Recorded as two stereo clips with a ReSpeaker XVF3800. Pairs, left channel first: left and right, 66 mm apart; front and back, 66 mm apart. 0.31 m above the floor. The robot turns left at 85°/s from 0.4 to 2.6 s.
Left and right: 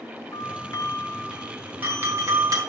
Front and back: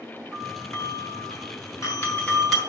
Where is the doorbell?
95° left, 4 m; by 2.6 s 95° right, 4 m.